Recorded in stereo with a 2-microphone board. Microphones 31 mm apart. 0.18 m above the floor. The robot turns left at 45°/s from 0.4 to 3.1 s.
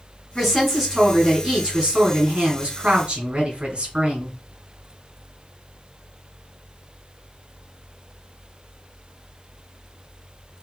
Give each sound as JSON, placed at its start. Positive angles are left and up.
{"t": 0.3, "sound": "a woman speaking", "azimuth_deg": 15, "distance_m": 2.5}